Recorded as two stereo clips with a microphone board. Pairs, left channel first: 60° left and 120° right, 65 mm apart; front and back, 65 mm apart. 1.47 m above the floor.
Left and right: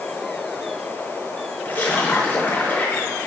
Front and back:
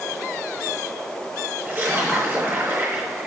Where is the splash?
120° left, 5 m.